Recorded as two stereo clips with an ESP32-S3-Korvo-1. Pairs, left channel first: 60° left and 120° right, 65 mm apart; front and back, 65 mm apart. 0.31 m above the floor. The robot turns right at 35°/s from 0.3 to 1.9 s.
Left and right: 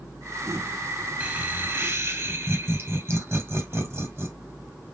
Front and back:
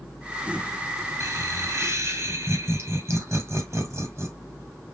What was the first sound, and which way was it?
Laughter, straight behind.